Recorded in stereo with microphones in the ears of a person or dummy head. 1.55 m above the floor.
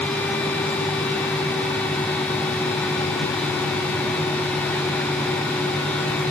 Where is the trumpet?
I don't hear a trumpet.